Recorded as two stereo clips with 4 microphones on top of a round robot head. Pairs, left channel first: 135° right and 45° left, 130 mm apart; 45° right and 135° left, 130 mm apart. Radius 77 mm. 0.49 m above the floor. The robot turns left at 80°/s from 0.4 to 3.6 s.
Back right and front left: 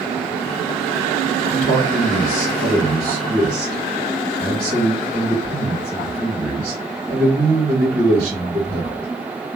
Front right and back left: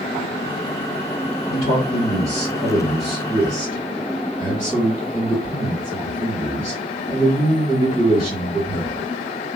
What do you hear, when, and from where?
1.5 s a man speaking: 100° right, 1.9 m; by 9.1 s 95° left, 1.9 m